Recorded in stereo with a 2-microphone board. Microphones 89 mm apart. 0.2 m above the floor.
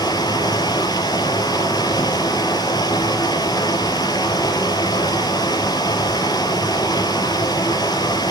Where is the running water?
45° left (ahead or behind), 3 m.